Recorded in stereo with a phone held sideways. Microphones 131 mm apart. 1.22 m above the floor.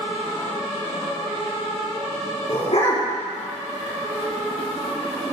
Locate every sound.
2.5 s a dog barking: 55° left (ahead or behind), 4 m